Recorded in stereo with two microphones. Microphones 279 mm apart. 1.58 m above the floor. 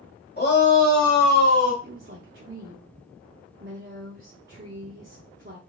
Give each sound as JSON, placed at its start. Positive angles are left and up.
{"t": 0.4, "sound": "a shout", "side_deg": 35, "distance_m": 1.4}
{"t": 1.8, "sound": "a woman speaking", "side_deg": -40, "distance_m": 0.7}